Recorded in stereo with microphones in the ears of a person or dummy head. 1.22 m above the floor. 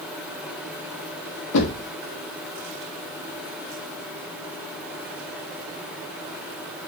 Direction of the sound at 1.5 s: 65° left (ahead or behind).